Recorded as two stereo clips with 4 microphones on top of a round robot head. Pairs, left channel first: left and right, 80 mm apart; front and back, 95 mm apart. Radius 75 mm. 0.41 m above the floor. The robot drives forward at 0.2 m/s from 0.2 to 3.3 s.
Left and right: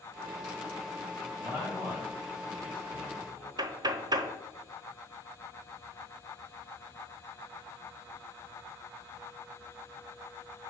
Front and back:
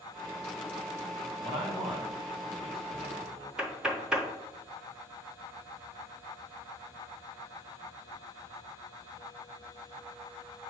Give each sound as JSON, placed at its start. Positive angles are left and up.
{"t": 1.4, "sound": "a man speaking", "azimuth_deg": -160, "distance_m": 3.0}
{"t": 3.6, "sound": "knocking", "azimuth_deg": -100, "distance_m": 0.8}